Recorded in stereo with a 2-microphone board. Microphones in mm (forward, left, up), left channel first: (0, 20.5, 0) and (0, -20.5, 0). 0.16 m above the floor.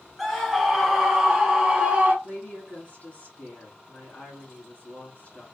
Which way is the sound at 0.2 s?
5° left (ahead or behind).